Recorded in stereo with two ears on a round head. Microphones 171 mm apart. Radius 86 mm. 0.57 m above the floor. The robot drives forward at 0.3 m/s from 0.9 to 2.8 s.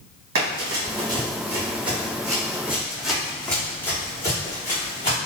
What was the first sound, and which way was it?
Running footsteps, 60° right (ahead or behind).